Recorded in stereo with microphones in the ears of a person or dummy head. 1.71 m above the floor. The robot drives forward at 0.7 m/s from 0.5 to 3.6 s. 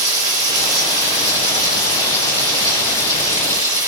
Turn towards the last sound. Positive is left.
turn(degrees=-20)  # may be behind; listen again after turning